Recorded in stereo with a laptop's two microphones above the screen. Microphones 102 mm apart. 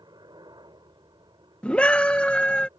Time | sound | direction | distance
0.0 | a helicopter | 45° right (ahead or behind) | ?
1.6 | a scream | 10° left (ahead or behind) | ?